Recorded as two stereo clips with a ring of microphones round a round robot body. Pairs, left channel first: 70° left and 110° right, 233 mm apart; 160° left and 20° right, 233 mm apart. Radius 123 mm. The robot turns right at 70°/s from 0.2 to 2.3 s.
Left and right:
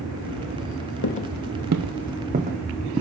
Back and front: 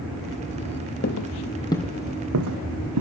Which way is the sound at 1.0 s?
110° left.